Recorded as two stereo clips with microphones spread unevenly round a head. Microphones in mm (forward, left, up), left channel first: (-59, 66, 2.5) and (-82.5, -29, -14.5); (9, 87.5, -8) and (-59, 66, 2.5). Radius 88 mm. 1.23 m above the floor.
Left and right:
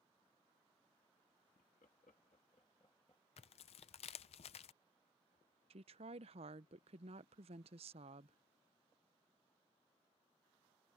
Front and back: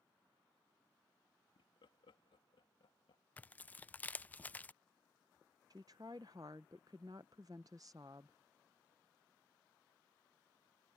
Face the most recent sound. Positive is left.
turn(degrees=-95)